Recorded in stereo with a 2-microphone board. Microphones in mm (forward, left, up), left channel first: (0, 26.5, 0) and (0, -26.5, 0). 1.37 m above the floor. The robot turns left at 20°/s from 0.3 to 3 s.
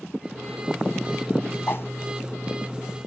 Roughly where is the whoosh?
Left.